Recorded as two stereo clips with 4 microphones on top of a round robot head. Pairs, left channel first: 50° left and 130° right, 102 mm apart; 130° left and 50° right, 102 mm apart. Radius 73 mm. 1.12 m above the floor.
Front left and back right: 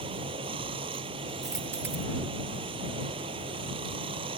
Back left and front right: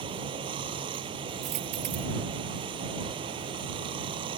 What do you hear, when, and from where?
0.0 s running water: 90° right
1.4 s a dropped coin: 65° right